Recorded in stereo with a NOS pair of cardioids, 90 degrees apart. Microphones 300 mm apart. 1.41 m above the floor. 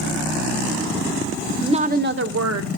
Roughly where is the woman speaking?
Ahead.